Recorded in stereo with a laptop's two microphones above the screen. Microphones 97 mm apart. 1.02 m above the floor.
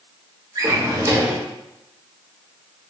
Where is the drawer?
35° right (ahead or behind), 0.8 m.